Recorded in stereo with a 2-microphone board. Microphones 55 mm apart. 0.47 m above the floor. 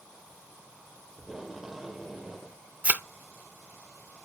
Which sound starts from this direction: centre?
Tape being pulled, at 1.2 s.